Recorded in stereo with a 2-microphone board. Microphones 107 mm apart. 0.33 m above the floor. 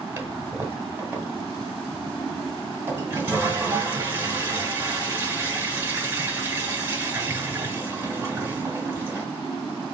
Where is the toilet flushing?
20° right (ahead or behind), 1.3 m.